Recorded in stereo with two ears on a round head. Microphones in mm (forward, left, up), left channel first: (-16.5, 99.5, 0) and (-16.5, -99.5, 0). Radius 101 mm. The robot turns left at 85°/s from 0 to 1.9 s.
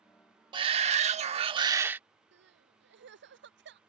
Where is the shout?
45° right; by 2.0 s 160° right.